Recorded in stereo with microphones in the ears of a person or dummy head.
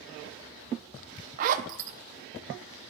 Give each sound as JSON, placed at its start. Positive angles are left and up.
{"t": 1.4, "sound": "a zipper", "side_deg": -45, "distance_m": 0.5}